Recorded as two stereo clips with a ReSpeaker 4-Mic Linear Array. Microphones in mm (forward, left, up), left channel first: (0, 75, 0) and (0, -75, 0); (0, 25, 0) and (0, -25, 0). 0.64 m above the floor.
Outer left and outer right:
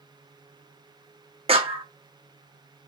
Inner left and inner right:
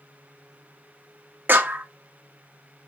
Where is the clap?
40° right (ahead or behind), 0.9 m.